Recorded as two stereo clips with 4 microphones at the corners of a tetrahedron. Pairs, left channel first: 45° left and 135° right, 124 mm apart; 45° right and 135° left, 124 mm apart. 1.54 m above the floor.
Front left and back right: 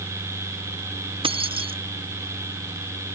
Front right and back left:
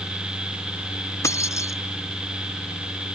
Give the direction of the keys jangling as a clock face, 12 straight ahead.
4 o'clock.